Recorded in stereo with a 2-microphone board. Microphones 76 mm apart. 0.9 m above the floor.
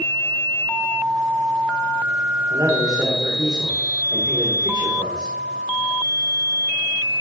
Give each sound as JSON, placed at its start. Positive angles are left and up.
{"t": 2.5, "sound": "a man speaking", "side_deg": -55, "distance_m": 2.0}